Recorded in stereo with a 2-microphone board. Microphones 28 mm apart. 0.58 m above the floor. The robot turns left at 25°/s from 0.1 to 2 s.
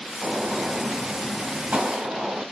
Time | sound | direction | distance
0.2 | a gunshot | 80° right | 2.5 m